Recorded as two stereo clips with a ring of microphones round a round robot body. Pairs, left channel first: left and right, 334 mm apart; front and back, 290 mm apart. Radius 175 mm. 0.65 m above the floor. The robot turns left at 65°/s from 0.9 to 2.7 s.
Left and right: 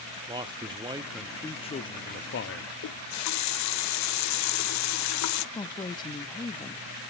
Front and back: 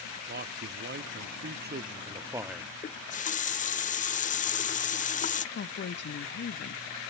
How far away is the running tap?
About 0.6 m.